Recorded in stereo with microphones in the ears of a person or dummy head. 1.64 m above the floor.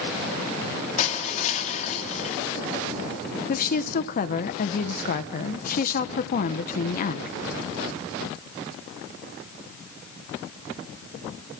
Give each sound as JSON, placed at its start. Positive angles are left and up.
{"t": 1.0, "sound": "crushing", "side_deg": 30, "distance_m": 3.5}
{"t": 3.5, "sound": "a woman speaking", "side_deg": 55, "distance_m": 1.5}